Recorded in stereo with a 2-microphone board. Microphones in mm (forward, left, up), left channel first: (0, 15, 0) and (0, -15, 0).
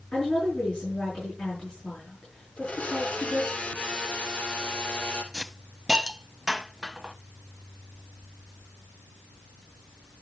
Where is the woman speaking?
50° left (ahead or behind), 6.5 m.